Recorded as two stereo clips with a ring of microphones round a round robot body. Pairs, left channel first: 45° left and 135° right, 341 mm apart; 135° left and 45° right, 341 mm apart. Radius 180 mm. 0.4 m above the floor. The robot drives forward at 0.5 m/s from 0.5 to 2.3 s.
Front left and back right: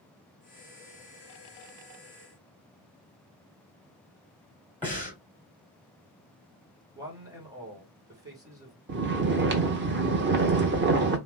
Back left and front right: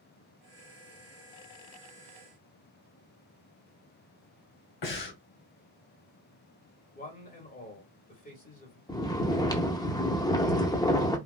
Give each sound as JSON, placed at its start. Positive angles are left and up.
{"t": 4.8, "sound": "breathing", "azimuth_deg": 130, "distance_m": 2.0}
{"t": 7.0, "sound": "a man speaking", "azimuth_deg": 160, "distance_m": 1.3}
{"t": 8.9, "sound": "snoring", "azimuth_deg": -155, "distance_m": 0.7}